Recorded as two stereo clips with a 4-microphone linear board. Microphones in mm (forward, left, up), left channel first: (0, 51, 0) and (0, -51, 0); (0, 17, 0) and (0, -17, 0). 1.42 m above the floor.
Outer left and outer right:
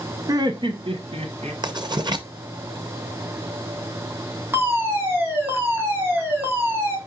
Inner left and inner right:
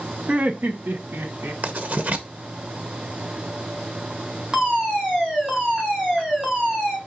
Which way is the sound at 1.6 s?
45° right (ahead or behind).